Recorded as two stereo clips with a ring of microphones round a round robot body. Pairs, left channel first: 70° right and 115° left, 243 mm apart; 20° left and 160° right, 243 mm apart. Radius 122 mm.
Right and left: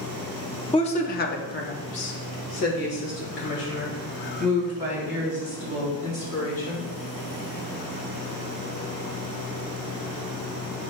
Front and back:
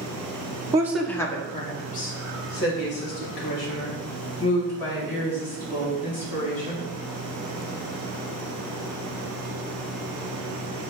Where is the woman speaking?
105° right, 0.8 m; by 6.9 s 20° right, 5.5 m.